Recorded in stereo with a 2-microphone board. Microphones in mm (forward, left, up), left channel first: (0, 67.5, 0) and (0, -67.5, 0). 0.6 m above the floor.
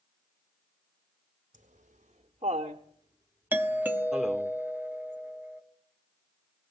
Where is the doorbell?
15° right (ahead or behind), 1.1 m.